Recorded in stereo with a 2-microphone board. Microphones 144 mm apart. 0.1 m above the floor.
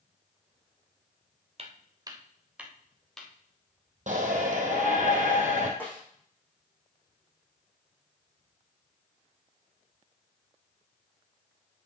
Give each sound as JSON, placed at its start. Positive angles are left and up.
{"t": 1.6, "sound": "footsteps", "side_deg": -45, "distance_m": 1.6}
{"t": 4.1, "sound": "a shout", "side_deg": -60, "distance_m": 3.0}
{"t": 5.8, "sound": "a snare drum", "side_deg": 15, "distance_m": 5.0}